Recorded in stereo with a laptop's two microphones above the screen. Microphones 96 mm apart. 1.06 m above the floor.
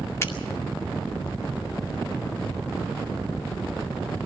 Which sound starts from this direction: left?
A finger snap, at 0.2 s.